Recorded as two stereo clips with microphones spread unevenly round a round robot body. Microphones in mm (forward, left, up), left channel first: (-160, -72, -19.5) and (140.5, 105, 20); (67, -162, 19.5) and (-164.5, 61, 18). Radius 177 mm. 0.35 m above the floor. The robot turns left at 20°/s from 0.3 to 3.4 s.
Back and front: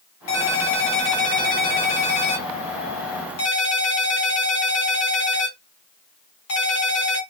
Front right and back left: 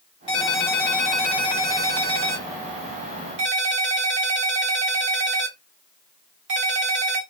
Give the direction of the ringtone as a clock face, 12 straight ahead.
4 o'clock.